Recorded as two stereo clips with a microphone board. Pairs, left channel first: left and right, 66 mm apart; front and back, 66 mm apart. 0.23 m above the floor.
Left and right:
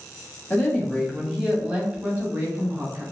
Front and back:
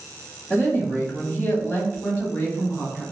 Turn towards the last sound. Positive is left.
turn(degrees=-55)